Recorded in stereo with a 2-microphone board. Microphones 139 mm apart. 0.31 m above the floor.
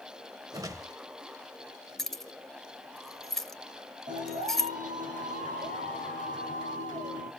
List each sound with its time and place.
0.5 s a whoosh: 25° right (ahead or behind), 0.8 m
2.0 s keys jangling: centre (ahead or behind), 0.7 m
4.1 s a clap: 60° right (ahead or behind), 8 m